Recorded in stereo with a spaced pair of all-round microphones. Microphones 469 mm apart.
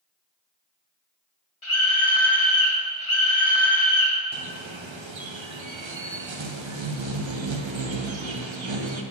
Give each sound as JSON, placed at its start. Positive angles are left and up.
{"t": 1.6, "sound": "a scream", "side_deg": 80, "distance_m": 2.5}
{"t": 4.3, "sound": "a bird", "side_deg": -70, "distance_m": 0.8}